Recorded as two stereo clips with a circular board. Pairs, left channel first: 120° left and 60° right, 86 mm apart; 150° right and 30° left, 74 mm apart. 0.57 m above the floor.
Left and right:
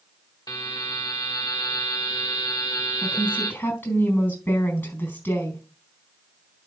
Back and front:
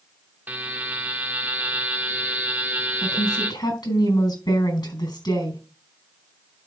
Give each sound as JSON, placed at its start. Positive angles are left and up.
{"t": 0.5, "sound": "a buzzer", "azimuth_deg": 90, "distance_m": 1.3}
{"t": 3.0, "sound": "a woman speaking", "azimuth_deg": -170, "distance_m": 4.0}